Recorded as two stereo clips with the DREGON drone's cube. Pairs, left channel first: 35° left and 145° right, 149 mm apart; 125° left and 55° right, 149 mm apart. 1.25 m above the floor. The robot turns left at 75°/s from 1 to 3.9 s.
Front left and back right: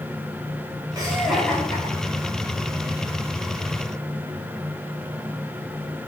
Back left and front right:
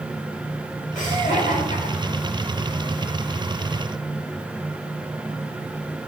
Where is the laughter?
150° left, 3.5 m; by 2.5 s 40° left, 3.5 m.